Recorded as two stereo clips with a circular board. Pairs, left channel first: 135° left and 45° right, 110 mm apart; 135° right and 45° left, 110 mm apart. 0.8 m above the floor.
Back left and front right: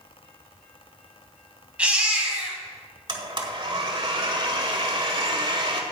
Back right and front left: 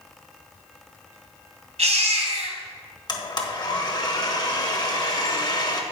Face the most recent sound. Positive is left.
turn(degrees=-90)